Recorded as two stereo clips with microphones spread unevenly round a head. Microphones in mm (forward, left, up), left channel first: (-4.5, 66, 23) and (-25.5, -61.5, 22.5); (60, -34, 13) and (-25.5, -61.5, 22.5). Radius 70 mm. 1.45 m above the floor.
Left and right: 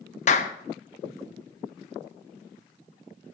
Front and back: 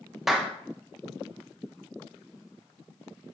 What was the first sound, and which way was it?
A clap, 110° left.